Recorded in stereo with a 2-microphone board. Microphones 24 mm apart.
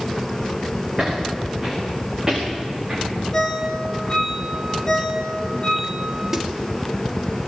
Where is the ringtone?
25° left (ahead or behind), 3.5 m.